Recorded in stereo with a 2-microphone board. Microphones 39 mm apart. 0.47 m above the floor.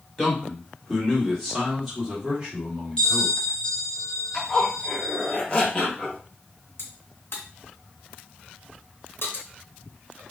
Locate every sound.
0.2 s a man speaking: 20° left (ahead or behind), 1.2 m; by 3.3 s 10° right (ahead or behind), 1.7 m
3.0 s a bell: 20° left (ahead or behind), 1.0 m
4.3 s a zipper: 20° left (ahead or behind), 0.8 m
6.8 s a crack: 75° left (ahead or behind), 0.9 m